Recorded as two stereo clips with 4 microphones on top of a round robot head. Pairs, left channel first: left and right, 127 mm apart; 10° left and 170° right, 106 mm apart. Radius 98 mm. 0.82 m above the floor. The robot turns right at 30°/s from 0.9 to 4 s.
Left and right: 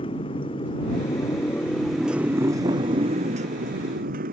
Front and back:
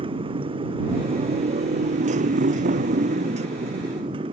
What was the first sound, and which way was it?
A motorcycle, 150° left.